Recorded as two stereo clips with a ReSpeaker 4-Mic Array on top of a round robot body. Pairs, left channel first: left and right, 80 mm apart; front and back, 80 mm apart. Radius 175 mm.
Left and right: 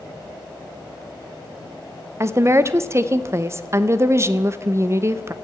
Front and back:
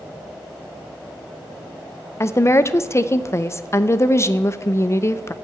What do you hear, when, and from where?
2.2 s a woman speaking: 45° right, 1.0 m